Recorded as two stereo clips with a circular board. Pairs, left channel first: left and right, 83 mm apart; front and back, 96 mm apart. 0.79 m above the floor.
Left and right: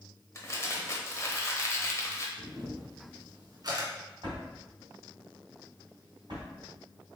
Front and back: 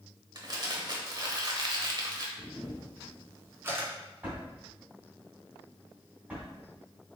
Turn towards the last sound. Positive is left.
turn(degrees=-105)